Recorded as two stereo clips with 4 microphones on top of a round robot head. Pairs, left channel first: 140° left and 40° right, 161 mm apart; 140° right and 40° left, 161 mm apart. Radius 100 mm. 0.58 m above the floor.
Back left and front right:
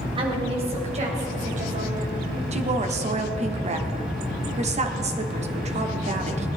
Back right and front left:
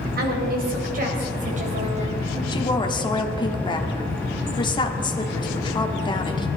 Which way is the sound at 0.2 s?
15° left.